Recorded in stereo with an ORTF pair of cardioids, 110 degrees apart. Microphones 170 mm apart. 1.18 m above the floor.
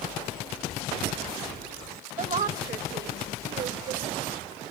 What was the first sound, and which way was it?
A woman speaking, 45° right.